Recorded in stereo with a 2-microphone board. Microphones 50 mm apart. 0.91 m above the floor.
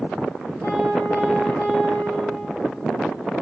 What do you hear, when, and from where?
0.6 s a piano: 55° left (ahead or behind), 4 m